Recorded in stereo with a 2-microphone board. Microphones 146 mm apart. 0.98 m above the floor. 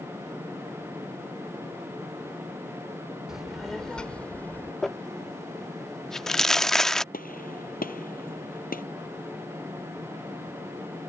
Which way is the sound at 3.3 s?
5° right (ahead or behind).